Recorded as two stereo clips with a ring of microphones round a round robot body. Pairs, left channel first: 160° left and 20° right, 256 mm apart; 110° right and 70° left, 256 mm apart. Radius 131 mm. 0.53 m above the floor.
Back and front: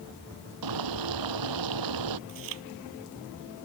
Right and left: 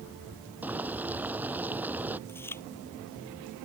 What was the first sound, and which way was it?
Boiling, 15° right.